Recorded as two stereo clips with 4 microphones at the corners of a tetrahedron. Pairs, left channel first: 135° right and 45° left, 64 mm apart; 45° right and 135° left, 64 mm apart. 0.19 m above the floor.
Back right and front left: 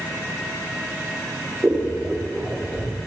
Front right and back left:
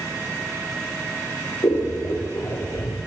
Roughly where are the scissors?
Ahead right.